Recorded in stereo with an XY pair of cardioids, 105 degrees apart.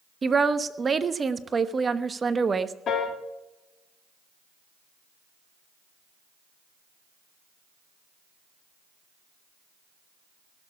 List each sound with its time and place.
0.2 s a woman speaking: 30° right, 1.0 m
2.9 s a piano: 60° left, 2 m